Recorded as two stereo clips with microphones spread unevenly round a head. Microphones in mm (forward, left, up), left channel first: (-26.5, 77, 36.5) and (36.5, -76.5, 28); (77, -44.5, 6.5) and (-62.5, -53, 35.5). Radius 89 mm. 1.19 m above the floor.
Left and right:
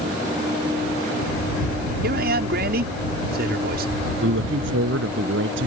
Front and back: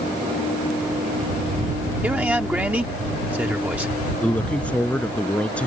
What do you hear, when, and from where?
2.0 s a man speaking: 95° right
4.2 s a woman speaking: 80° right